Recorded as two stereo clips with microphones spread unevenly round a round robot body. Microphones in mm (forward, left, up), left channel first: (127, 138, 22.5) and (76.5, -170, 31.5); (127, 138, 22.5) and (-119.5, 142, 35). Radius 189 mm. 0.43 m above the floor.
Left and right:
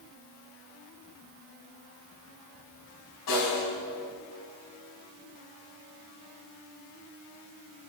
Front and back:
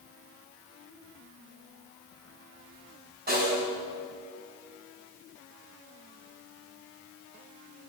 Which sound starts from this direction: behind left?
A snare drum, at 3.3 s.